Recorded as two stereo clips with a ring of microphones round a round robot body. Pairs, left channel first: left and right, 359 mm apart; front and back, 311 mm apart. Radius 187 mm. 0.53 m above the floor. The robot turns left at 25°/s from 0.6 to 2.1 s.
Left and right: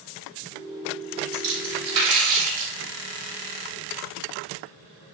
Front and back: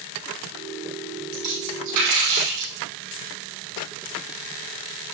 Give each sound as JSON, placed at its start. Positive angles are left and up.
{"t": 1.3, "sound": "a splash", "azimuth_deg": -120, "distance_m": 4.5}